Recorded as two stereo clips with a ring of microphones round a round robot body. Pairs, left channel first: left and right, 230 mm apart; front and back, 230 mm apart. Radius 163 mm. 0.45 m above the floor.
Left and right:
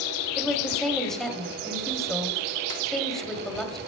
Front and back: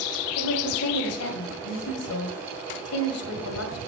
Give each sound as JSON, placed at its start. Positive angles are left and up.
{"t": 0.4, "sound": "a woman speaking", "azimuth_deg": 0, "distance_m": 2.0}